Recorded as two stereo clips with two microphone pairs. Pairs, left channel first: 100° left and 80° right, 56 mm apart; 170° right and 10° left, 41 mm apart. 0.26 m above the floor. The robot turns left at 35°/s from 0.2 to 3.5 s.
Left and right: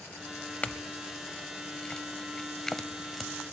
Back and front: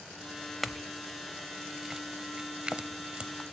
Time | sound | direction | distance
0.6 | a clink | 100° left | 0.5 m